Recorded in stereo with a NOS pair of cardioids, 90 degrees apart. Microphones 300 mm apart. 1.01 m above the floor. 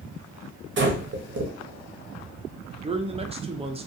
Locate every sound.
0.8 s breathing: 40° right, 0.9 m
2.8 s a man speaking: 20° right, 0.6 m